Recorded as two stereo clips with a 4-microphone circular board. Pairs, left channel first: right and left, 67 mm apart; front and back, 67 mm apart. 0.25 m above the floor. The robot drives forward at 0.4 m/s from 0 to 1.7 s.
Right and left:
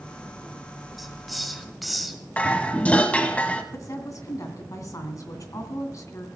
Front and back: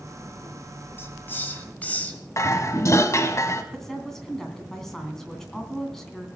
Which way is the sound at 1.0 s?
Straight ahead.